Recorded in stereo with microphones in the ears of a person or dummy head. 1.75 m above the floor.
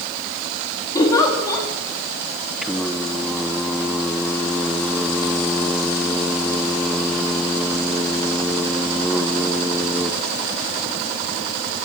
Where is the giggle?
20° left (ahead or behind), 4.5 m.